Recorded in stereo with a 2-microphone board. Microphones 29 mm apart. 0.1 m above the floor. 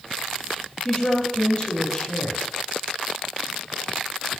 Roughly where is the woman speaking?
Left.